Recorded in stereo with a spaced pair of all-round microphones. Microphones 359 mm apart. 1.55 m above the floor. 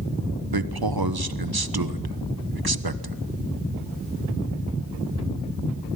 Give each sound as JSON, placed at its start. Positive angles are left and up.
{"t": 0.5, "sound": "a man speaking", "side_deg": -85, "distance_m": 1.2}